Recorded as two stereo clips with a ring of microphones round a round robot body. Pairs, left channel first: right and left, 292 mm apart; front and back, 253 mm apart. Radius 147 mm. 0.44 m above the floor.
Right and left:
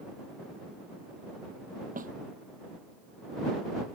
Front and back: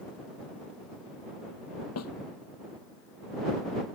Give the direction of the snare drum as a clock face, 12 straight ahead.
11 o'clock.